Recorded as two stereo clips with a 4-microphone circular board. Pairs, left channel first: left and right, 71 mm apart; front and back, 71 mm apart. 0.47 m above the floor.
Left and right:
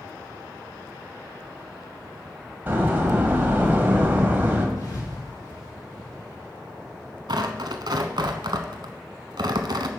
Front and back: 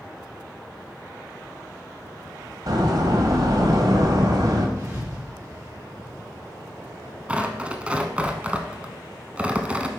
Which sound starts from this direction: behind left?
A thud, at 4.8 s.